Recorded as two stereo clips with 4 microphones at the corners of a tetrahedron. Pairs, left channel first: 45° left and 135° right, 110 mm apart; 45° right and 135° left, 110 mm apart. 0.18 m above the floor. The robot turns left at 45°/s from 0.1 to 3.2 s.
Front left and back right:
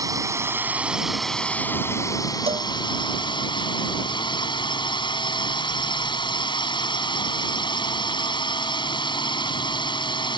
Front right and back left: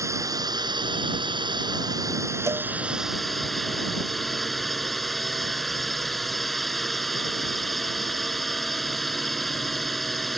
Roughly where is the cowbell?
Behind.